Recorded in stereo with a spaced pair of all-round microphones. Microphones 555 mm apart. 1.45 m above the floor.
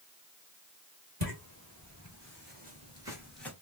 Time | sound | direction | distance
1.2 | footsteps | 40° right (ahead or behind) | 1.8 m